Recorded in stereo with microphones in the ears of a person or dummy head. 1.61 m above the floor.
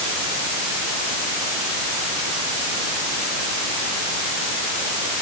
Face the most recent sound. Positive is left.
No sound to turn to.